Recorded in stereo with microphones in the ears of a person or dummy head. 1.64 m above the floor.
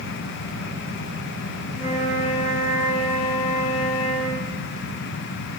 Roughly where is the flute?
Centre.